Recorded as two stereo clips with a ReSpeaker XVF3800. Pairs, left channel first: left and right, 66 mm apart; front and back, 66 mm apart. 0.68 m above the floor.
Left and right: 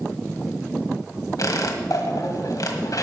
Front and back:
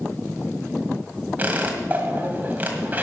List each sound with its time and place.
1.4 s a squeak: 115° left, 1.8 m